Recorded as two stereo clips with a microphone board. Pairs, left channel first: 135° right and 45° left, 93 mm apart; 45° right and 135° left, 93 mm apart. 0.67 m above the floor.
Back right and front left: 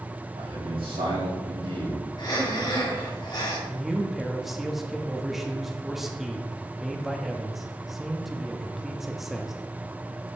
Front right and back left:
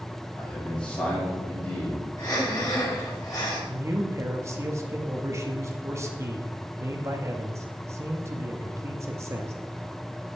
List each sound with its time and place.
0.4 s a man speaking: 35° left, 4 m; by 2.1 s 25° left, 4.5 m
2.2 s breathing: 95° right, 4 m
3.7 s a man speaking: 130° left, 1.1 m